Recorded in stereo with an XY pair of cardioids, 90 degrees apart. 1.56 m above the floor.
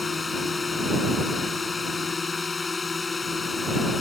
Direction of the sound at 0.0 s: 35° left.